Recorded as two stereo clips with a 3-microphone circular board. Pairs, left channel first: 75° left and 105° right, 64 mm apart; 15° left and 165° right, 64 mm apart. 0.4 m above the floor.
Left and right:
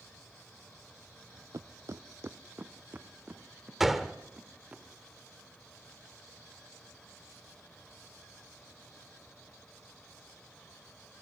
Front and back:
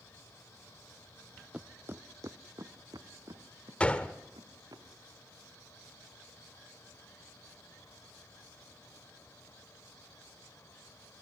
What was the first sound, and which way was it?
Footsteps, 95° right.